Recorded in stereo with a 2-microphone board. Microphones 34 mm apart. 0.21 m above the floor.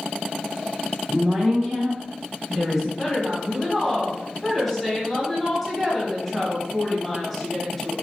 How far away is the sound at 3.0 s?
About 1.2 m.